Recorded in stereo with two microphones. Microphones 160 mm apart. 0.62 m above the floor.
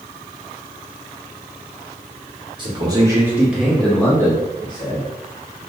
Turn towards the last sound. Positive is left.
turn(degrees=30)  # may be behind; listen again after turning